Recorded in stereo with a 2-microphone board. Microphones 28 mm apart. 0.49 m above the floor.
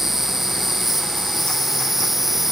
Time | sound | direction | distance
0.0 | an insect | 10° right (ahead or behind) | ?